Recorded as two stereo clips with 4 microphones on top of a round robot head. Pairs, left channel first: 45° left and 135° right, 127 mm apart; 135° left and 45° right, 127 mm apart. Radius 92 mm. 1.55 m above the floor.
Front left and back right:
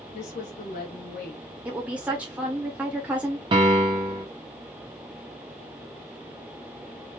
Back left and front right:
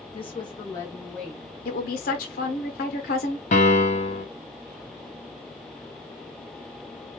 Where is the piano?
170° left, 1.0 m.